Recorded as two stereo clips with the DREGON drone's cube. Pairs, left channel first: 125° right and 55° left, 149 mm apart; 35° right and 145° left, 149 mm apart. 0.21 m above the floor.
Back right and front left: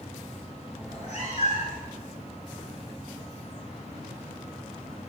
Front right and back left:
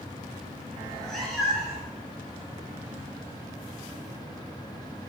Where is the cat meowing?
115° right, 1.0 m; by 1.9 s 130° right, 1.4 m.